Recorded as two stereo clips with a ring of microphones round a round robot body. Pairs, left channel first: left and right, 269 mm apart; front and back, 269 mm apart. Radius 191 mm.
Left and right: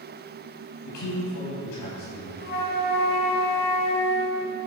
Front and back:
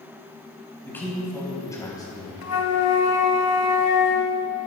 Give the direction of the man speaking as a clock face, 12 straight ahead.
9 o'clock.